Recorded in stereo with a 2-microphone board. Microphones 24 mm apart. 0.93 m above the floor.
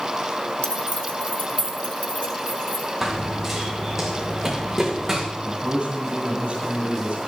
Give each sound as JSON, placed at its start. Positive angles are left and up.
{"t": 0.6, "sound": "keys jangling", "side_deg": 65, "distance_m": 1.4}
{"t": 3.0, "sound": "running footsteps", "side_deg": -5, "distance_m": 3.0}
{"t": 5.4, "sound": "a man speaking", "side_deg": -65, "distance_m": 8.0}